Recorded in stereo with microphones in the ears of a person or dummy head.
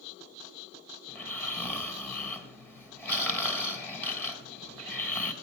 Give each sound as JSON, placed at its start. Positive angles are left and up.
{"t": 1.1, "sound": "snoring", "side_deg": 5, "distance_m": 3.5}